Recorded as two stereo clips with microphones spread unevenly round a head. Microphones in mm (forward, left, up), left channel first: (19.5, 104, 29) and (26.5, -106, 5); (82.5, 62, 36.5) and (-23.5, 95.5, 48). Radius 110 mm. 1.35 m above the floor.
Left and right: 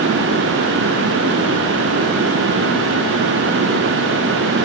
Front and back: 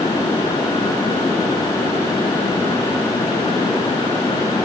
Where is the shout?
No shout in this recording.